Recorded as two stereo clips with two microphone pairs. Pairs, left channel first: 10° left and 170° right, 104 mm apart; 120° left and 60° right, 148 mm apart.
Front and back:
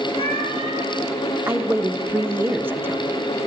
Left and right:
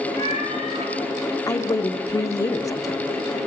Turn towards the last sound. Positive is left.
turn(degrees=155)